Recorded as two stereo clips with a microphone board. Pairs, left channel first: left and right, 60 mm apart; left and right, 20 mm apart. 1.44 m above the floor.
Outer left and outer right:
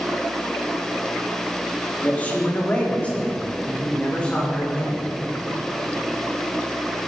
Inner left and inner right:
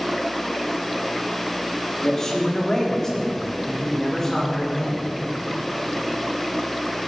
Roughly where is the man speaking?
Left.